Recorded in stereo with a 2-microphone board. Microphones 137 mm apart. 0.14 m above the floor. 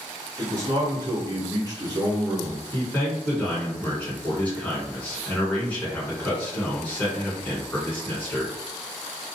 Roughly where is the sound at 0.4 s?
Right.